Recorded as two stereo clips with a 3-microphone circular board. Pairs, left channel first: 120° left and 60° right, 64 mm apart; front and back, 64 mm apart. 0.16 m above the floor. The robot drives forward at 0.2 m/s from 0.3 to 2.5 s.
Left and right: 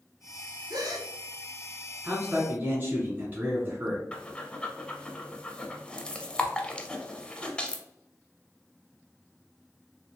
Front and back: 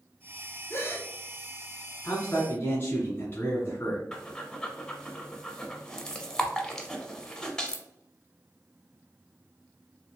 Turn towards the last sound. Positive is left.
turn(degrees=65)